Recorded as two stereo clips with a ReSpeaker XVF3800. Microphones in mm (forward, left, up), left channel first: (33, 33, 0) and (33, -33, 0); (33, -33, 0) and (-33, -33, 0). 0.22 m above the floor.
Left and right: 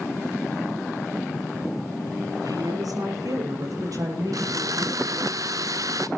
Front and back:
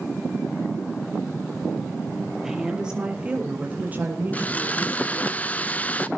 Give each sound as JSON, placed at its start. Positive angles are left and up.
{"t": 2.4, "sound": "a woman speaking", "azimuth_deg": -95, "distance_m": 5.0}
{"t": 4.3, "sound": "sawing", "azimuth_deg": -65, "distance_m": 0.8}